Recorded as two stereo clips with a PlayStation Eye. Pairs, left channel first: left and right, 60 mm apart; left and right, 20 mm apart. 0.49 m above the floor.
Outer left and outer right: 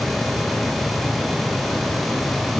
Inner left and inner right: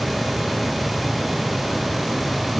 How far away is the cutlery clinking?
No cutlery clinking in this recording.